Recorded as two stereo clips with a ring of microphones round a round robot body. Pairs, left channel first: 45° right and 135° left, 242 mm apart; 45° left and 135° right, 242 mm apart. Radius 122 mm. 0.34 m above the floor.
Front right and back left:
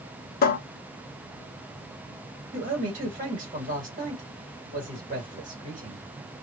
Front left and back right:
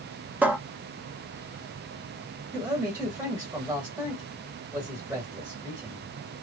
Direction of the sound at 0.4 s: 55° right.